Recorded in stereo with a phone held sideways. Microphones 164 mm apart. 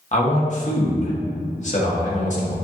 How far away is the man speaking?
About 1.4 m.